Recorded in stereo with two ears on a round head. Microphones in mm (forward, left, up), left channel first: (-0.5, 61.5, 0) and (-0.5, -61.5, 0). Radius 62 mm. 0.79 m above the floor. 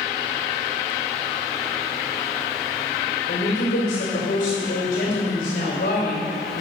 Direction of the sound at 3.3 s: 75° left (ahead or behind).